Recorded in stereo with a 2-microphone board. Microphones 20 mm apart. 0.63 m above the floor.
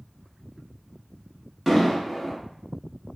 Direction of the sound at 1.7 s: 5° left (ahead or behind).